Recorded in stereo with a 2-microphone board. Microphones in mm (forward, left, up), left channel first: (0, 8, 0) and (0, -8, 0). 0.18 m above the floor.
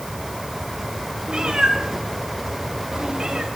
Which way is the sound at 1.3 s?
55° right (ahead or behind).